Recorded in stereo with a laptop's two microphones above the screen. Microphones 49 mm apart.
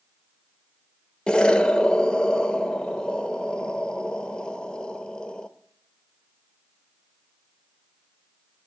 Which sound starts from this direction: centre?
An explosion, at 1.3 s.